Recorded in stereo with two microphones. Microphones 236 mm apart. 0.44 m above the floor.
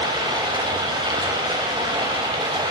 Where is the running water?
20° right (ahead or behind), 0.7 m.